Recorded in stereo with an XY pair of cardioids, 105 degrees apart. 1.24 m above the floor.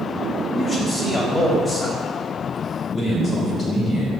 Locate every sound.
0.6 s a man speaking: 40° left, 2.5 m
2.9 s a man speaking: 55° left, 3 m